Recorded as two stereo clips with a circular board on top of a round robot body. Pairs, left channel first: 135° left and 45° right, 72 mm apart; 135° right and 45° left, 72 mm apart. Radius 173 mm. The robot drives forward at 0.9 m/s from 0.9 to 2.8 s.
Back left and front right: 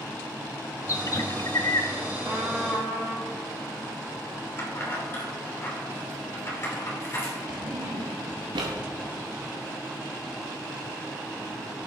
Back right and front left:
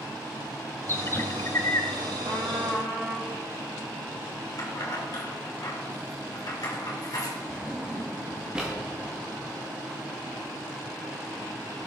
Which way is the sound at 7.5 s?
35° right.